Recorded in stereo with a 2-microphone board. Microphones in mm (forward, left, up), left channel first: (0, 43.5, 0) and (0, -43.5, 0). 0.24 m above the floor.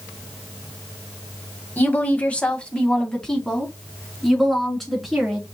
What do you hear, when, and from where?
1.8 s a woman speaking: 20° left (ahead or behind), 1.1 m; by 5.5 s centre (ahead or behind), 3 m